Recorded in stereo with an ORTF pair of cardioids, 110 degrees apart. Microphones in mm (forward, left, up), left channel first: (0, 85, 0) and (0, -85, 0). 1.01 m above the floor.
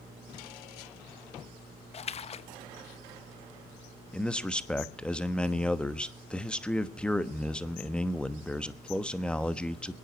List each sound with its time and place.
1.9 s a splash: 40° left, 0.8 m
4.1 s a man speaking: 5° left, 1.2 m